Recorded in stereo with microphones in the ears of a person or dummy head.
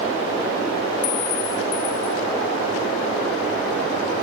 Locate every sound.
1.0 s a clink: 40° left (ahead or behind), 1.2 m